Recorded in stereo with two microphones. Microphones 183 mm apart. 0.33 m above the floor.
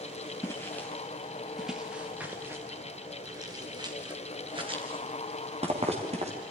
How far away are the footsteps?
About 2.5 m.